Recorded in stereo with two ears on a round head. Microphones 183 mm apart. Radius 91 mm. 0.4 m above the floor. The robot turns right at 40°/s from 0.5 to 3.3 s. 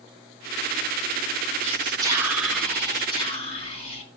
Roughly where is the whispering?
Ahead right.